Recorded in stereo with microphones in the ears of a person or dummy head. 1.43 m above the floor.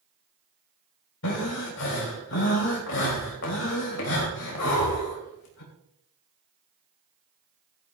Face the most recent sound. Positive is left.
turn(degrees=70)  # may be behind; listen again after turning